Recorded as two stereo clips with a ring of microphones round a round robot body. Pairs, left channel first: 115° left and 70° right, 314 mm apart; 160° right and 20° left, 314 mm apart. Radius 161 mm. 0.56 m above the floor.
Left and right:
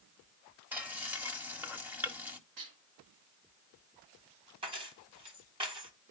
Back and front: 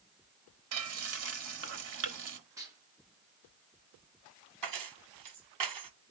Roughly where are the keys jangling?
Ahead.